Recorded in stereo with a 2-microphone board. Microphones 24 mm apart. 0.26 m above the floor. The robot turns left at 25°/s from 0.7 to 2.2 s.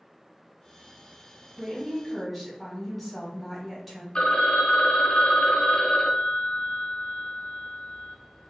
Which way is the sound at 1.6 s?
20° right (ahead or behind).